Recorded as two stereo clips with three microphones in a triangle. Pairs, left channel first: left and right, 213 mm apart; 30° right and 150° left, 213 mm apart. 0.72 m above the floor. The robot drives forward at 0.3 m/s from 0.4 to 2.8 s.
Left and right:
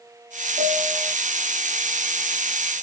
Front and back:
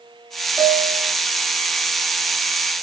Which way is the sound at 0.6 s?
130° right.